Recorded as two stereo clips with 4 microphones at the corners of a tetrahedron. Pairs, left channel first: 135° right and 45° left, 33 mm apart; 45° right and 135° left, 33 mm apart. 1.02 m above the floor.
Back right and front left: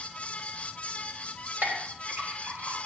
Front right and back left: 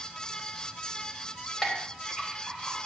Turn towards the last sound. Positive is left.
turn(degrees=25)